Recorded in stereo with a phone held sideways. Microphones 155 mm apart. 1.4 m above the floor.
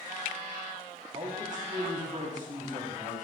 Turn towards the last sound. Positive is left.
turn(degrees=-55)  # may be behind; listen again after turning